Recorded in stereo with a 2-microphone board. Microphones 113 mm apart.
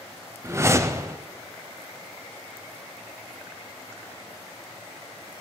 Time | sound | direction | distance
0.4 | a whoosh | 25° right (ahead or behind) | 0.6 m